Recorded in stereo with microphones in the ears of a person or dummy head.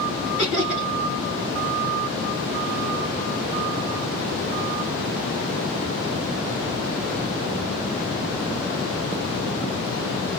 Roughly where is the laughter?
Left.